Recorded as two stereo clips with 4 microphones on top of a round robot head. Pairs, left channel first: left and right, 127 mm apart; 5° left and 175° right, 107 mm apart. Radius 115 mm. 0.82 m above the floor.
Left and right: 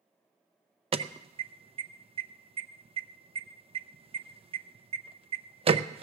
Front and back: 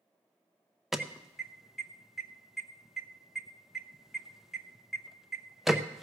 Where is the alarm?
90° right, 0.7 m.